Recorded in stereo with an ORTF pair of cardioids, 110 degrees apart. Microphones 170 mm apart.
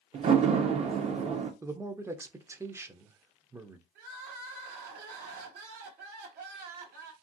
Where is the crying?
65° right, 1.0 m.